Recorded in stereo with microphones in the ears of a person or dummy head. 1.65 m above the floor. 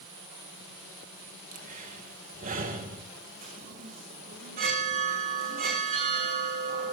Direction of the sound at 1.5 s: 45° right (ahead or behind).